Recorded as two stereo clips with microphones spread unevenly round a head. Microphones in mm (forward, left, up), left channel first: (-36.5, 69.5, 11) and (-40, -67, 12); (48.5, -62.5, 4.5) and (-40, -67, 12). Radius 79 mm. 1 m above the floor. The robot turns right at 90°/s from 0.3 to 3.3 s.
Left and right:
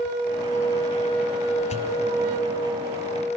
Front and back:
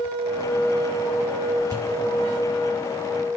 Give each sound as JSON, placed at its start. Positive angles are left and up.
{"t": 1.7, "sound": "a pop", "azimuth_deg": 120, "distance_m": 1.7}